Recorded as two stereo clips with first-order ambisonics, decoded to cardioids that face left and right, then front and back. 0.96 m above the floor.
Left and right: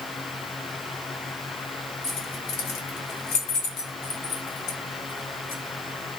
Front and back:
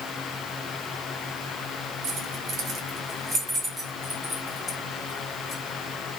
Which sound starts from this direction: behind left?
Keys jangling, at 2.0 s.